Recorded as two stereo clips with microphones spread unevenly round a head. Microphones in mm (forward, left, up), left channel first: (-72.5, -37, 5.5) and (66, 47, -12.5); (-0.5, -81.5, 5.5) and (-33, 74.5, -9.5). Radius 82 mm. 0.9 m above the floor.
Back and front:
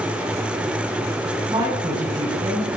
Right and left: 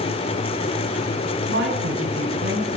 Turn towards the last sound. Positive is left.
turn(degrees=100)